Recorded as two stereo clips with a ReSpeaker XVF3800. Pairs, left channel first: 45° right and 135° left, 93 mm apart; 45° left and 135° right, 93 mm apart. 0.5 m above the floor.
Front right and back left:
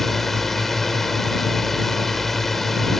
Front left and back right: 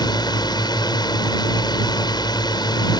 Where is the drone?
45° left.